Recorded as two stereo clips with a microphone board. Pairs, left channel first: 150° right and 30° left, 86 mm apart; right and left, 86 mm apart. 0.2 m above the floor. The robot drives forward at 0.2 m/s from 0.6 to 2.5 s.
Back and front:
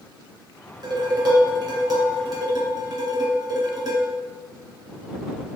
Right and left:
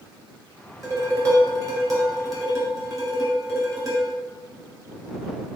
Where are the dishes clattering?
45° left, 1.8 m; by 4.1 s 55° left, 1.7 m.